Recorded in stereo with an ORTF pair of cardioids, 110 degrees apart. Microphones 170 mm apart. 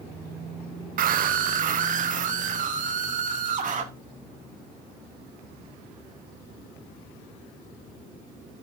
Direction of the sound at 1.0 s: 55° right.